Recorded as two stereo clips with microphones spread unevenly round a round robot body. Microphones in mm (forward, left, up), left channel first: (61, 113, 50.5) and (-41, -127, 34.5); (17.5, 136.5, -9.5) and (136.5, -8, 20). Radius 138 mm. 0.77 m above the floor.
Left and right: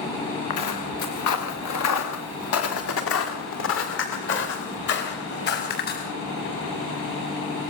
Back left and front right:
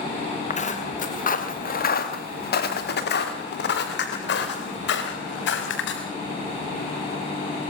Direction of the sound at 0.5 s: 80° left.